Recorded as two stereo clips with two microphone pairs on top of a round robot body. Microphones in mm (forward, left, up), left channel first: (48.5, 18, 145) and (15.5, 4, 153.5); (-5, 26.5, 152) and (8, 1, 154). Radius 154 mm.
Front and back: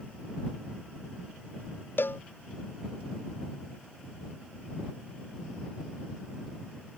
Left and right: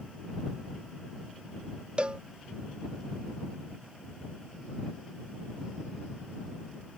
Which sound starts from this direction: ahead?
A cowbell, at 2.0 s.